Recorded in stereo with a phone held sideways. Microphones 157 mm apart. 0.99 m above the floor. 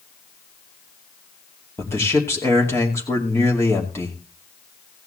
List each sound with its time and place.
1.8 s a man speaking: 15° left (ahead or behind), 2.5 m